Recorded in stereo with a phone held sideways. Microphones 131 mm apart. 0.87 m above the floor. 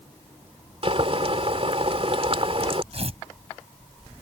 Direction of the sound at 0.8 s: 50° right (ahead or behind).